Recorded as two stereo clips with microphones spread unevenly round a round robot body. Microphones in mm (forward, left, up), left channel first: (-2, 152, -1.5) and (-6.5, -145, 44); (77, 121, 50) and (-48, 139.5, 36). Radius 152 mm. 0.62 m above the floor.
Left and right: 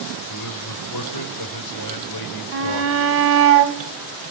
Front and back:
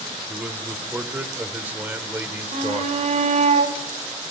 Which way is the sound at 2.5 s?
145° right.